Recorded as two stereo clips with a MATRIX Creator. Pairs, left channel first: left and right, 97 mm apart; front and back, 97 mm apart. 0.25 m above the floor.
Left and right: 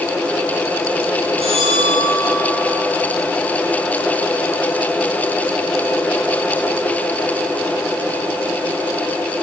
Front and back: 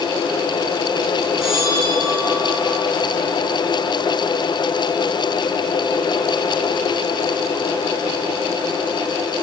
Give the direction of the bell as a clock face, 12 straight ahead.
3 o'clock.